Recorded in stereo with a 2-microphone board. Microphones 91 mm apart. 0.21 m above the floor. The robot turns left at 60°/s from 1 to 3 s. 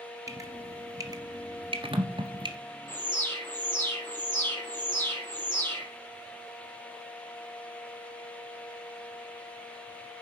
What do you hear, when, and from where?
0.3 s dripping: 35° right (ahead or behind), 1.8 m; by 2.5 s 45° right (ahead or behind), 1.8 m
2.9 s an alarm: 25° left (ahead or behind), 6 m; by 5.9 s 20° left (ahead or behind), 6 m